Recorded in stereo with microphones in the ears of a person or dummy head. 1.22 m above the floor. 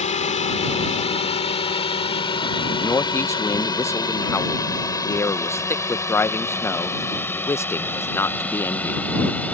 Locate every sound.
0.0 s a drone: 35° left (ahead or behind); by 9.5 s 5° left (ahead or behind)
2.8 s a man speaking: 10° left (ahead or behind)